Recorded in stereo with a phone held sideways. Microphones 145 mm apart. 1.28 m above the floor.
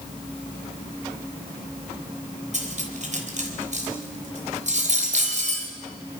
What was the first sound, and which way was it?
Cutlery clinking, 55° right (ahead or behind).